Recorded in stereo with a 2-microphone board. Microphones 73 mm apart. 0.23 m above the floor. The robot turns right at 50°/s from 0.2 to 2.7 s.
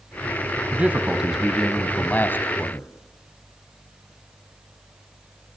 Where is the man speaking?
40° right, 1.4 m; by 2.9 s 60° left, 1.4 m.